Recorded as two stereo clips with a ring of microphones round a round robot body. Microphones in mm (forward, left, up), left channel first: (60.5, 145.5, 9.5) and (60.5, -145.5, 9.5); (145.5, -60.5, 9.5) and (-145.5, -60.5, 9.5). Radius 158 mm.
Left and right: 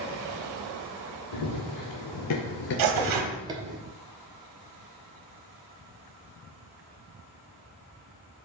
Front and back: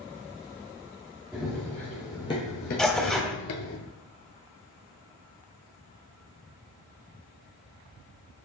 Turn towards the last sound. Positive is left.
turn(degrees=-85)